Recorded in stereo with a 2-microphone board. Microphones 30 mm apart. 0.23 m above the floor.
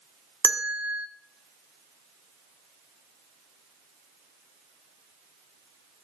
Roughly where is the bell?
Right.